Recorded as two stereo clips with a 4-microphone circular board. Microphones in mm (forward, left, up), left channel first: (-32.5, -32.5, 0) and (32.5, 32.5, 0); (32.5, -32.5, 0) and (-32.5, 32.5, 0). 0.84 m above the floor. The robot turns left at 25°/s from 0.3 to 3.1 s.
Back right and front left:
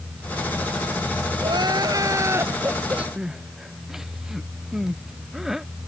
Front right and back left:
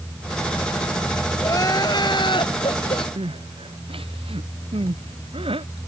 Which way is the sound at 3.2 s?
130° left.